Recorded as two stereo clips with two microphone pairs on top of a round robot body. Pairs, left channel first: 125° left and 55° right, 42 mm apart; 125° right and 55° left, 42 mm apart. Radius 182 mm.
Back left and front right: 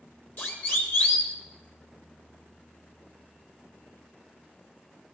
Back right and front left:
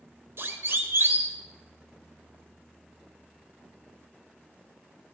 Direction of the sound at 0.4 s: 80° left.